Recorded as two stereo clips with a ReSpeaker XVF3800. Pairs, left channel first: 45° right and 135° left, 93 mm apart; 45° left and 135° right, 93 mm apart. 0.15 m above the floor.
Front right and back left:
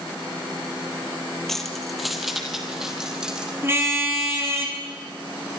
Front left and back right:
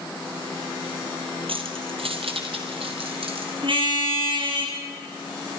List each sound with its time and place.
1.5 s keys jangling: 130° right, 2.5 m; by 3.5 s 145° right, 4 m
3.6 s a car horn: 160° right, 4 m